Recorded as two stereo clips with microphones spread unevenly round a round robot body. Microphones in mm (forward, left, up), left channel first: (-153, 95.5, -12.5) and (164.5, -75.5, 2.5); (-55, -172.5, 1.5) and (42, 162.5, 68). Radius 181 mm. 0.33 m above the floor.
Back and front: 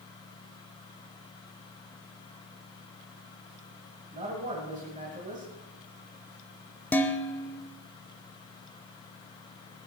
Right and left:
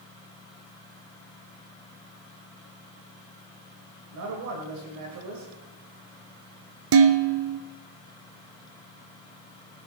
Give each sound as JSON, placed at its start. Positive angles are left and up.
{"t": 4.1, "sound": "a man speaking", "azimuth_deg": 40, "distance_m": 2.5}
{"t": 6.9, "sound": "dishes clattering", "azimuth_deg": 75, "distance_m": 0.8}